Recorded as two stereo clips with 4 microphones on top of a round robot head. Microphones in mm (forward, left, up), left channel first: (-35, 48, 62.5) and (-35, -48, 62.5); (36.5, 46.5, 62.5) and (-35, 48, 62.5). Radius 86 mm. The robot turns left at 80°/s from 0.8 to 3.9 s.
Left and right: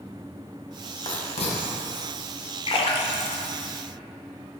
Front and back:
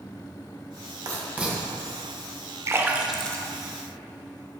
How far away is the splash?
About 0.7 m.